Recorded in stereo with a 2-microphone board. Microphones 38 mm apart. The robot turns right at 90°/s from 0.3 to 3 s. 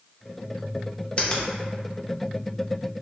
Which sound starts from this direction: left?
A finger snap, at 1.2 s.